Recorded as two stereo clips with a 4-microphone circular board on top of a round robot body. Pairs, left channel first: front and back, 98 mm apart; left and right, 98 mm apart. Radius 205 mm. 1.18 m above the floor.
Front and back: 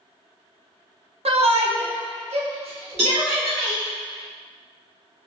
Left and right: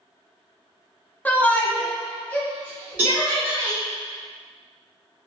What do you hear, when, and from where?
1.2 s a shout: 165° left, 0.7 m; by 3.8 s 170° left, 2.0 m
3.0 s a cowbell: 160° right, 1.2 m